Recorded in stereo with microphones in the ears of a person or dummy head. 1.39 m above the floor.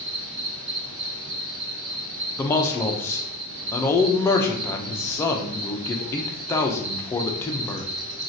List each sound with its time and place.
0.0 s an insect: 65° right (ahead or behind), 1.4 m
2.4 s a man speaking: 15° left (ahead or behind), 0.6 m